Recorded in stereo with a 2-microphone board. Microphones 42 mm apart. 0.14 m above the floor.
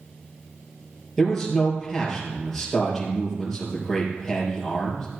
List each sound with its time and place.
1.2 s a man speaking: 5° left (ahead or behind), 4 m